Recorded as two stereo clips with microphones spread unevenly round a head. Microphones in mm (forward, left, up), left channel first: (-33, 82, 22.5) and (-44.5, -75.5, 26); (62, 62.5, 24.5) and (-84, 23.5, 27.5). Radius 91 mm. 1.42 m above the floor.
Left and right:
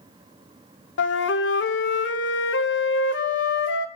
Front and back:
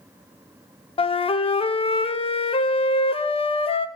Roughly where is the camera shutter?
I don't hear a camera shutter.